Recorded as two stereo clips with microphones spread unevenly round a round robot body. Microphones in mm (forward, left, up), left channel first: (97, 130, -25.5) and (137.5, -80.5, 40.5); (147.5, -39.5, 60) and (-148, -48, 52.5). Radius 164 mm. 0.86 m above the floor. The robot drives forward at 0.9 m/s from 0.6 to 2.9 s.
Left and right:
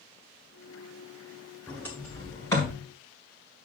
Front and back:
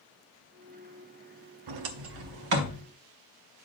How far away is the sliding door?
About 0.6 m.